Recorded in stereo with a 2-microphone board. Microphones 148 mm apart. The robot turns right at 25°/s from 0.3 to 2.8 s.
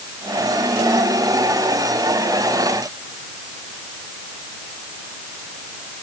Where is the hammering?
I don't hear hammering.